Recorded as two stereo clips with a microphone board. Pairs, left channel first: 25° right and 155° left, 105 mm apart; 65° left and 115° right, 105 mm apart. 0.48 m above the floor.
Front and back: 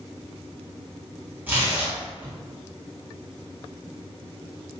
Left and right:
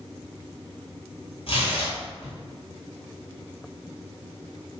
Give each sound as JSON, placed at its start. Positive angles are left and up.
{"t": 1.5, "sound": "tearing paper", "azimuth_deg": 85, "distance_m": 1.8}